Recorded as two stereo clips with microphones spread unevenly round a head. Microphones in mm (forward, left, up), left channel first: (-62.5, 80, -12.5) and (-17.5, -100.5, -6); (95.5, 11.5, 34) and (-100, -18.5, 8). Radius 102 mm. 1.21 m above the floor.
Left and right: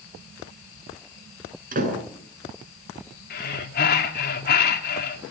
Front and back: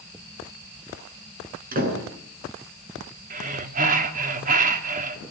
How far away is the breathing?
About 3.5 m.